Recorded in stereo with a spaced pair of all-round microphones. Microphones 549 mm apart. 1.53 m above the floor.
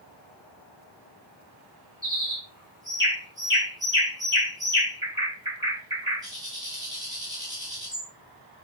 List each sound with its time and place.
2.0 s a bird: 5° right (ahead or behind), 1.8 m